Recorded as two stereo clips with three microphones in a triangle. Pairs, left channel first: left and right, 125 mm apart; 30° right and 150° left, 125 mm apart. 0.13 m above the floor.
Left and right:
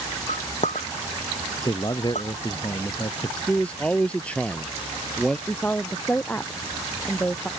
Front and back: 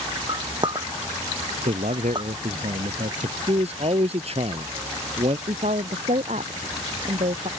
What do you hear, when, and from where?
0.3 s a clink: 100° left
1.6 s a man speaking: 145° left
3.5 s a man speaking: 170° left
5.5 s a woman speaking: 165° left